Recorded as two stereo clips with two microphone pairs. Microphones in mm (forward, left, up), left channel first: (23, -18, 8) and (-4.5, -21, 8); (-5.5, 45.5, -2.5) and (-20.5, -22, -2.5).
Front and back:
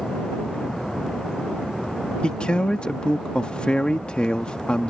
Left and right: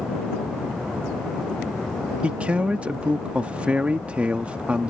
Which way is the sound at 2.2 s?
35° right.